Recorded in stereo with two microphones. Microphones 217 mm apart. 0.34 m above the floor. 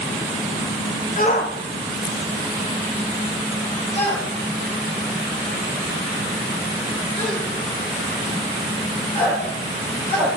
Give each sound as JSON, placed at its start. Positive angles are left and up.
{"t": 1.2, "sound": "a shout", "side_deg": 40, "distance_m": 1.1}